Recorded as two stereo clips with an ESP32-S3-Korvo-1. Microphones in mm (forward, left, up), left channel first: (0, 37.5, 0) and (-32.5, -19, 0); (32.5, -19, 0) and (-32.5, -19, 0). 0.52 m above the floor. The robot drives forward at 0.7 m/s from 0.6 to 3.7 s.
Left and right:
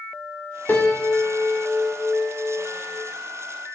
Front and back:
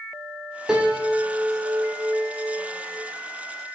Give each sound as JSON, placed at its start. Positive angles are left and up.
{"t": 0.7, "sound": "a piano", "azimuth_deg": 100, "distance_m": 1.6}